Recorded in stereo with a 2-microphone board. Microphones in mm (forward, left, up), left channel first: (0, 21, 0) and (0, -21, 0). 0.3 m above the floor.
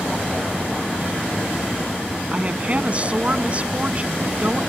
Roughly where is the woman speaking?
Right.